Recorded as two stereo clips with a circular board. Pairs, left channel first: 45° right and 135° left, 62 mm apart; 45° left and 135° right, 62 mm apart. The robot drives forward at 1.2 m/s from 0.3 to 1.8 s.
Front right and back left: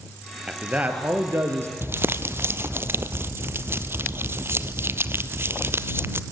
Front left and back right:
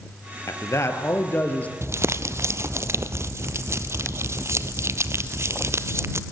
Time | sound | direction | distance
0.5 | a man speaking | 60° left | 2.5 m
1.8 | crumpling | 175° right | 0.7 m